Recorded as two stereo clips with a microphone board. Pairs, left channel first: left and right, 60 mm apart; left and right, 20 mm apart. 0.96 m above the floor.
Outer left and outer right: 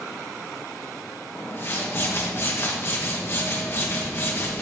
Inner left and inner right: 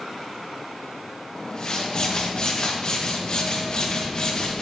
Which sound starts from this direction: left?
A whoosh, at 1.4 s.